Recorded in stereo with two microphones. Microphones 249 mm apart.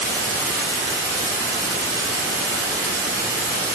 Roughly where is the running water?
Centre.